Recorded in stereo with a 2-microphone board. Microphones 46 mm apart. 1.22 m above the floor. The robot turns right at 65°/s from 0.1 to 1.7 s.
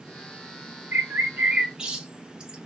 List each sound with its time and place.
0.9 s a bird: 70° right (ahead or behind), 0.8 m; by 2.6 s 20° right (ahead or behind), 0.8 m